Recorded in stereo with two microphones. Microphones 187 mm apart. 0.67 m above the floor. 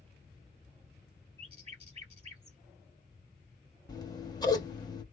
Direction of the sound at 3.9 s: 20° left (ahead or behind).